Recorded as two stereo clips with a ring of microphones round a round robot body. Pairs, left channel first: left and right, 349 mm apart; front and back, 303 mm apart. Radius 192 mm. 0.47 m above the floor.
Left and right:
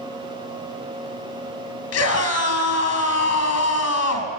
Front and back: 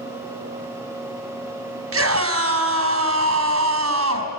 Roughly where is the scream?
Behind left.